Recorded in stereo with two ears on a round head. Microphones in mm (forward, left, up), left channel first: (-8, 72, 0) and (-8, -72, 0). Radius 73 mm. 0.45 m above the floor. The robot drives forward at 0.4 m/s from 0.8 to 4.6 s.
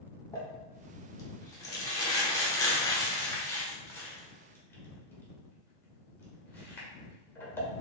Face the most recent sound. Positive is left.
turn(degrees=15)  # may be behind; listen again after turning